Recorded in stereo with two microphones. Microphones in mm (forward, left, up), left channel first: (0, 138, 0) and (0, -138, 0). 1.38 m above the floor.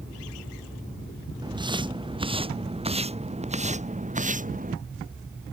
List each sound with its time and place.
1.4 s footsteps: 15° right (ahead or behind); by 4.8 s 30° right (ahead or behind)